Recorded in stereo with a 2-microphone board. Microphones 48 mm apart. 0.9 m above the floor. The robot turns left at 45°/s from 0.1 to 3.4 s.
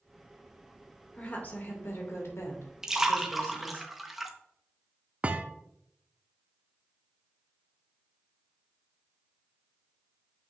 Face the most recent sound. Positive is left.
turn(degrees=-30)  # may be behind; listen again after turning